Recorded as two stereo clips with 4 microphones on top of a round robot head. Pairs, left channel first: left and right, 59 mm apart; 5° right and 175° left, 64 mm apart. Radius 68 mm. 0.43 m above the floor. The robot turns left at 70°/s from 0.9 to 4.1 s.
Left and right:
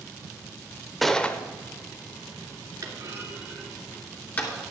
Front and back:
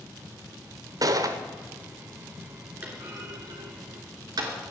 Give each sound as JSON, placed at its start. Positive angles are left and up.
{"t": 1.0, "sound": "a gunshot", "azimuth_deg": 180, "distance_m": 0.9}
{"t": 2.8, "sound": "a clunk", "azimuth_deg": -120, "distance_m": 3.0}